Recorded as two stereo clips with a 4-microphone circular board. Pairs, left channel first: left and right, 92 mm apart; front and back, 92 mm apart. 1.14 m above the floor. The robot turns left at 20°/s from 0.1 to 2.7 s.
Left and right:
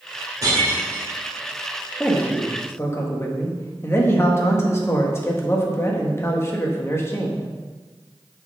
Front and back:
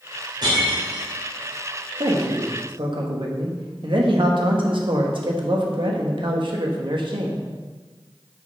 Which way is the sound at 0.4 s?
140° right.